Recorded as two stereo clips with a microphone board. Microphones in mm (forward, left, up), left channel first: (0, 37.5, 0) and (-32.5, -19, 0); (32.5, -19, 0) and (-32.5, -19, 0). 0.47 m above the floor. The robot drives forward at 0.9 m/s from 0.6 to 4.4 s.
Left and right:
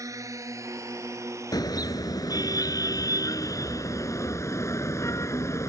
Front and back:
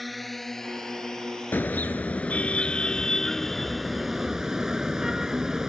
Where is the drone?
90° right; by 5.7 s 70° right.